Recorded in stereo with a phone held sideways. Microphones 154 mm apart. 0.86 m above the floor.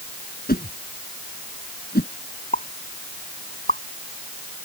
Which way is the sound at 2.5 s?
60° left (ahead or behind).